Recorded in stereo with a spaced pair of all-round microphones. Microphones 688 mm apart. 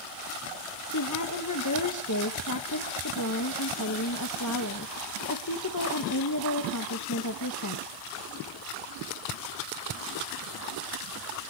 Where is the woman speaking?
25° left (ahead or behind), 1.3 m.